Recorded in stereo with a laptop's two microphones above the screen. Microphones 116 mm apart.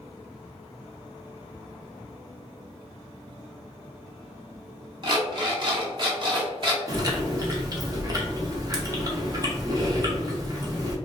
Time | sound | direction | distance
5.0 | an alarm clock | 40° right (ahead or behind) | 0.9 m
6.9 | chewing | 35° right (ahead or behind) | 0.6 m